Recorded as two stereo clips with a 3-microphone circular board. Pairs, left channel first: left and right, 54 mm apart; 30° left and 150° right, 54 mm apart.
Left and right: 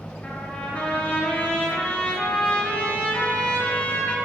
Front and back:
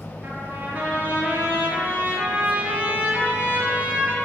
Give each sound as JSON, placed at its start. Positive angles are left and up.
{"t": 0.2, "sound": "a trumpet", "azimuth_deg": 155, "distance_m": 0.7}